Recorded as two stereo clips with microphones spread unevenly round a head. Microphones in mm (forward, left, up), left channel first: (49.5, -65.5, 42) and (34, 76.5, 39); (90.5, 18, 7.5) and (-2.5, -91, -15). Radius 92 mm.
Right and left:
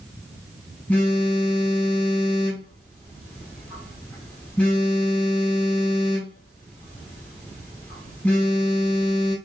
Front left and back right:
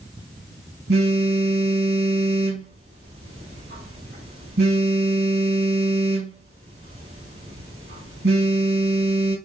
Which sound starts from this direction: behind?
A phone buzzing, at 0.9 s.